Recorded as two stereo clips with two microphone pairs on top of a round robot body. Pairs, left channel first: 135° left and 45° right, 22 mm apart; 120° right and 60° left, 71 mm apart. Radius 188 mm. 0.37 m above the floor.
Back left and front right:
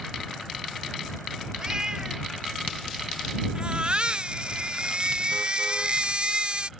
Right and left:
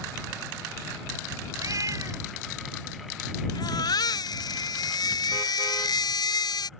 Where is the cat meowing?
15° left.